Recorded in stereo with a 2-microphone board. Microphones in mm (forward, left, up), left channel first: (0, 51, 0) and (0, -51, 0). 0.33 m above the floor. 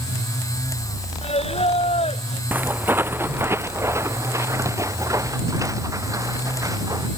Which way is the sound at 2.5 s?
15° right (ahead or behind).